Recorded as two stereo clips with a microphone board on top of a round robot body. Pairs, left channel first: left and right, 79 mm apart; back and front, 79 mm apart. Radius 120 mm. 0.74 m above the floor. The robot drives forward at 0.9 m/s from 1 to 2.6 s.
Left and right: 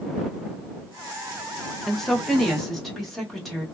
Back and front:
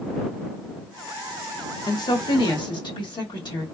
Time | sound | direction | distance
1.9 | a woman speaking | 175° left | 0.7 m